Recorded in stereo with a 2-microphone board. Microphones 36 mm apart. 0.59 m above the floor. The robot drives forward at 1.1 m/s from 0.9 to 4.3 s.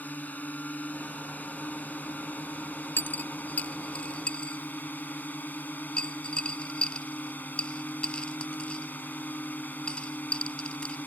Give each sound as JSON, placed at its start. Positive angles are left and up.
{"t": 0.0, "sound": "a drone", "side_deg": 50}
{"t": 3.0, "sound": "a dropped coin", "side_deg": 70}